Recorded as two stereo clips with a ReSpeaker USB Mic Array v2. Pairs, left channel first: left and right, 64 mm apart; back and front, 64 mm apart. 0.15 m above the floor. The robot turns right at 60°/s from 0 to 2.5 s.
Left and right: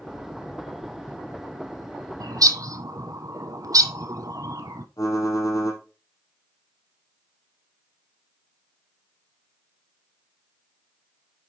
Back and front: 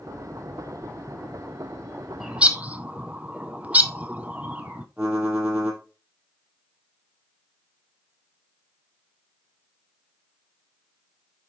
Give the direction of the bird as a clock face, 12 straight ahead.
3 o'clock.